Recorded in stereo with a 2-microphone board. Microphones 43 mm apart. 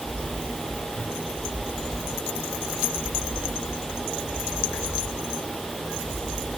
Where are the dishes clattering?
I don't hear dishes clattering.